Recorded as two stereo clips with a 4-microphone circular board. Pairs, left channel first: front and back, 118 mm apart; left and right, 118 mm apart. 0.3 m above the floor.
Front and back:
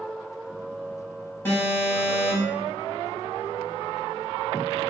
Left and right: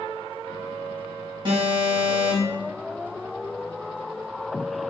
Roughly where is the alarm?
Ahead right.